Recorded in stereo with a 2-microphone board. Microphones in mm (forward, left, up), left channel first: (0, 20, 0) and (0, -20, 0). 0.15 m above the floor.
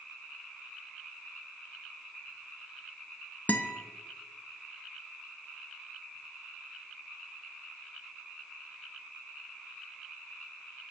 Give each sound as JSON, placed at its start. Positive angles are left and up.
{"t": 3.5, "sound": "a guitar", "side_deg": 45, "distance_m": 0.6}